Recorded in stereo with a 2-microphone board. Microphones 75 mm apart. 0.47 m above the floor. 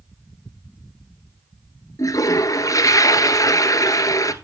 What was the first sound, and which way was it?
A toilet flushing, 55° left (ahead or behind).